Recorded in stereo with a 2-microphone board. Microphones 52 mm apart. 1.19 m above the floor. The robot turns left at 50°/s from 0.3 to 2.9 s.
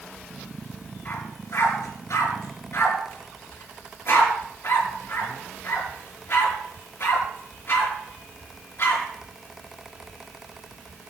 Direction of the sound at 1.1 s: 45° left (ahead or behind).